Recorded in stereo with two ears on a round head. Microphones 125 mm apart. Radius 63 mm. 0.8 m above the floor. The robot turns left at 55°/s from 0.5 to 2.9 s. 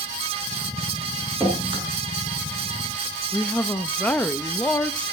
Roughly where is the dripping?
Centre.